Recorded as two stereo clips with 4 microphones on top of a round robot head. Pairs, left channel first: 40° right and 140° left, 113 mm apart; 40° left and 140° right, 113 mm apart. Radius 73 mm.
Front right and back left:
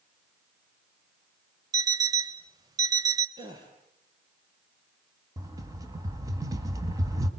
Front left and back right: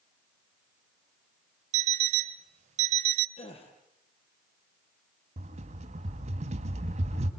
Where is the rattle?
160° right, 2 m.